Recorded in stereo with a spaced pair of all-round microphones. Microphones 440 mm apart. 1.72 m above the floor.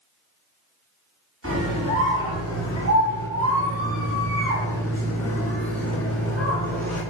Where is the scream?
30° right (ahead or behind), 6.5 m.